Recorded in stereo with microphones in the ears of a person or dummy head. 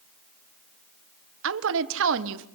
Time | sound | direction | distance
1.4 | a woman speaking | 75° right (ahead or behind) | 1.5 m